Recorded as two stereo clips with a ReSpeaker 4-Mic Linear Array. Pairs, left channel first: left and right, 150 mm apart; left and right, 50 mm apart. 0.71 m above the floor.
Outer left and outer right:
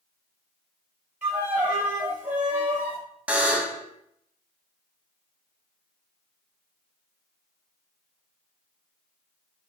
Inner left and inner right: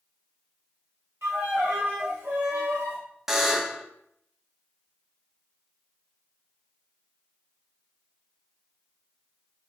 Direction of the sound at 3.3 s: 10° right (ahead or behind).